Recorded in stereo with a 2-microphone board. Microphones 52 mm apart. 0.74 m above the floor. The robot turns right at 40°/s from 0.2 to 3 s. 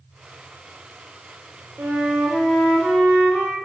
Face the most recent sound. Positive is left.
turn(degrees=5)